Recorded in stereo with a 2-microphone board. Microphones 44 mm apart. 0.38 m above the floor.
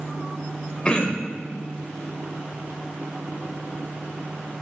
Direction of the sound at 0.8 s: 25° left (ahead or behind).